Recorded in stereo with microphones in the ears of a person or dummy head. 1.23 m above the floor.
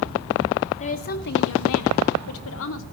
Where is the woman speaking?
35° left (ahead or behind), 1.9 m; by 2.8 s 65° left (ahead or behind), 2.5 m.